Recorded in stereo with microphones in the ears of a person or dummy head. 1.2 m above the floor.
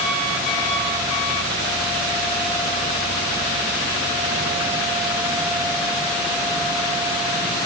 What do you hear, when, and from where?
Only background noise.